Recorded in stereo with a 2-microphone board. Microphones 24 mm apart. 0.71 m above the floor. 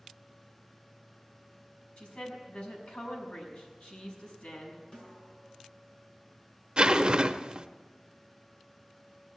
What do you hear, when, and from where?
2.0 s a woman speaking: 80° left, 5.5 m
4.9 s a snare drum: 45° left (ahead or behind), 6.5 m
6.8 s a zipper: 40° right (ahead or behind), 0.6 m